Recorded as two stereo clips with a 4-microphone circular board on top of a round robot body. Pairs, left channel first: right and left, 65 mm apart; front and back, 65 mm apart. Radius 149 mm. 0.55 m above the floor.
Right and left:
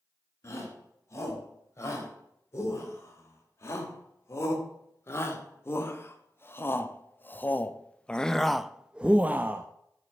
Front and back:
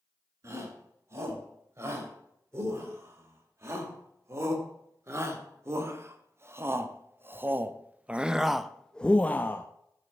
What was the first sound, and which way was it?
A shout, 135° right.